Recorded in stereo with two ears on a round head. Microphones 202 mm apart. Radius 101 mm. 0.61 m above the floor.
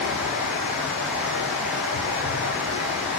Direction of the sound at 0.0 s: 5° right (ahead or behind).